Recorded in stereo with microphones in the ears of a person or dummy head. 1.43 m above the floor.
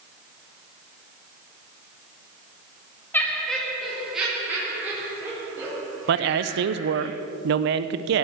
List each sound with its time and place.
3.1 s laughter: 10° left (ahead or behind), 1.8 m; by 7.1 s 20° right (ahead or behind), 5.5 m
6.1 s a man speaking: 60° right (ahead or behind), 0.8 m